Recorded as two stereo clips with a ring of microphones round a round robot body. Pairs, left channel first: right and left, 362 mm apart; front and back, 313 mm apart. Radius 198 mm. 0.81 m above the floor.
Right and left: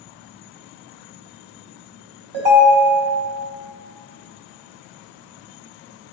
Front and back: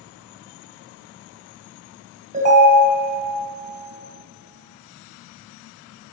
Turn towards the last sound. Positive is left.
turn(degrees=115)